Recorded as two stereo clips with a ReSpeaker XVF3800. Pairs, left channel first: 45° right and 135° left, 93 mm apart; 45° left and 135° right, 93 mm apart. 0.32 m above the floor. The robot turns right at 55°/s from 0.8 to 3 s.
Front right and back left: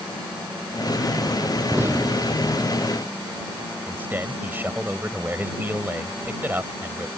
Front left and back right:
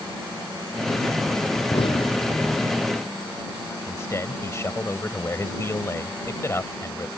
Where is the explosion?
60° left; by 2.7 s 115° left.